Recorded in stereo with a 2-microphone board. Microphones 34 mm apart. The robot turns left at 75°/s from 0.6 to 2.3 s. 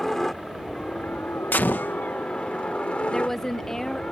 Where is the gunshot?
100° left; by 2.0 s 65° left.